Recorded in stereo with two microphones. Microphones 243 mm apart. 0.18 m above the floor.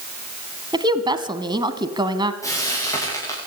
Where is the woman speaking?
20° right (ahead or behind), 1.3 m.